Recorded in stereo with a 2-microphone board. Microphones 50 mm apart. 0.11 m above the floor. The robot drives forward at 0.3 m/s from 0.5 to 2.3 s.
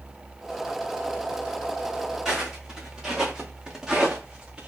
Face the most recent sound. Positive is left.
turn(degrees=-20)  # may be behind; listen again after turning